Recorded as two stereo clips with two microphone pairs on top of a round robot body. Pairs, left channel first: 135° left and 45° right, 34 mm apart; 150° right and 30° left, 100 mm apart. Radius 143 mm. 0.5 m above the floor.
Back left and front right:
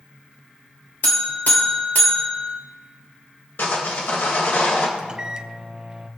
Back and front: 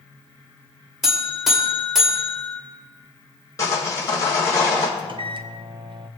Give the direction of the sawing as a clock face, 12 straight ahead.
7 o'clock.